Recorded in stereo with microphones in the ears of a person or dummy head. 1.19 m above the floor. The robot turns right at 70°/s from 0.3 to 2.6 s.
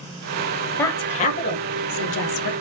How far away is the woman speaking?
About 0.6 m.